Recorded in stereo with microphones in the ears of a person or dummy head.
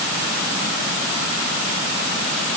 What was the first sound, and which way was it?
Only background noise.